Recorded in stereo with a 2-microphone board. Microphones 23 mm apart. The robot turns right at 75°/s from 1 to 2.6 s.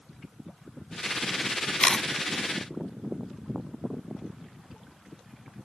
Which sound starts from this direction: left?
A camera shutter, at 1.8 s.